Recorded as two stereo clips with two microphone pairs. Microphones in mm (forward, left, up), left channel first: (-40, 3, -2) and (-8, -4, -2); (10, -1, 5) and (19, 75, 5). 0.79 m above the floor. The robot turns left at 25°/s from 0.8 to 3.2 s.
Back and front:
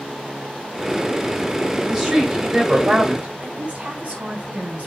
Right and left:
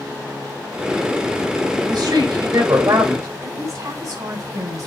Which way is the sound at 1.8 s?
75° left.